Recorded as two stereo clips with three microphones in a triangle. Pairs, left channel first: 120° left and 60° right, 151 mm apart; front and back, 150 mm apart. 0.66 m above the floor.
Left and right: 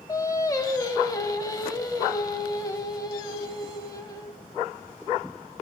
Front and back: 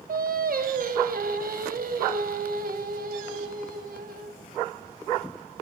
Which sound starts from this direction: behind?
Singing, at 0.1 s.